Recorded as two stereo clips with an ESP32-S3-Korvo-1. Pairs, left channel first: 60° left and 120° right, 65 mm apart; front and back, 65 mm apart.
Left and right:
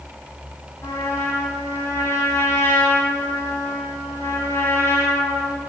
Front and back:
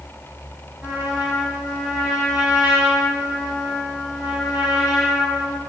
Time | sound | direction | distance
0.8 | a trumpet | 110° left | 7 m